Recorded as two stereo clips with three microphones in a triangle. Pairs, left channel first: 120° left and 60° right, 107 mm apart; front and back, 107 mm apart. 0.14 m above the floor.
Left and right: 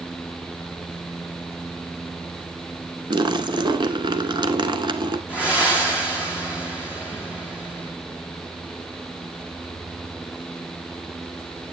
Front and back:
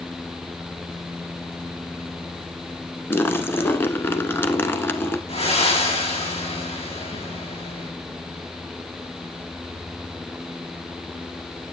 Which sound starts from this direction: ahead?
Breathing, at 5.3 s.